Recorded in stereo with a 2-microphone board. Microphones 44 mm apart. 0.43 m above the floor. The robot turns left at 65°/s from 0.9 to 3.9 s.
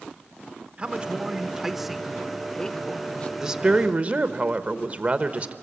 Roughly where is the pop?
I don't hear a pop.